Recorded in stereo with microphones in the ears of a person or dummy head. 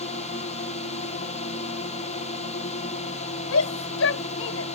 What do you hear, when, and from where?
0.0 s a drone: 40° left (ahead or behind)
3.5 s a shout: 75° left (ahead or behind)